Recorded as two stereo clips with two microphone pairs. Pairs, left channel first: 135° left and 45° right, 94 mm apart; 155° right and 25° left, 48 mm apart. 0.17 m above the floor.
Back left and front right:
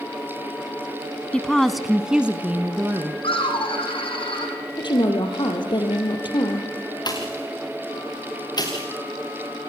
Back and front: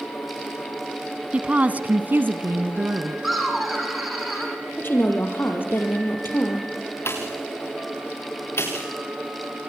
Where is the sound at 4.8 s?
165° left, 4 m.